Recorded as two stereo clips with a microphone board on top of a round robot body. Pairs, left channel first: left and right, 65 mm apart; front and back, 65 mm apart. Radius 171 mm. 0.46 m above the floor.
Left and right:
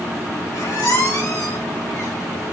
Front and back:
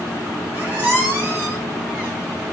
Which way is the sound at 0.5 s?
115° left.